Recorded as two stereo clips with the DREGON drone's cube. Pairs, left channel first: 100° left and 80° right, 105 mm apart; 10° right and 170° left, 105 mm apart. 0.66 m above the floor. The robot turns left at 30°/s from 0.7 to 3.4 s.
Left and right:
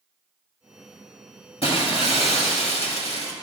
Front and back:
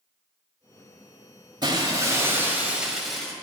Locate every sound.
1.6 s breaking glass: 125° left, 1.2 m; by 3.3 s 75° left, 1.2 m